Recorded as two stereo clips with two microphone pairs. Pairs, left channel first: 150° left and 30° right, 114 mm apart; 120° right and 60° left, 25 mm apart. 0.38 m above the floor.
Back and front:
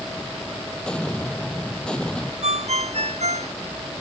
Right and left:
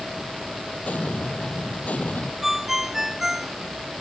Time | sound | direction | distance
0.8 | an explosion | 130° right | ?
2.4 | a ringtone | 15° right | ?